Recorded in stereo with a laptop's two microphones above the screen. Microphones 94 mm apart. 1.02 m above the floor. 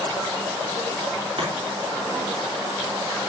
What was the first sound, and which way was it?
Chopping, 80° right.